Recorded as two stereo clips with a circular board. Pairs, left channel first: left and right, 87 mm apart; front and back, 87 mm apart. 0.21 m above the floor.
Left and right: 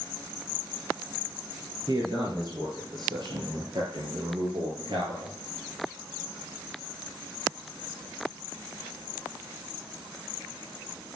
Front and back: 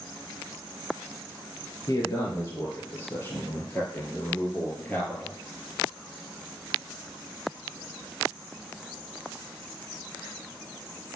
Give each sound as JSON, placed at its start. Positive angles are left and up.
{"t": 1.9, "sound": "a man speaking", "azimuth_deg": -50, "distance_m": 4.0}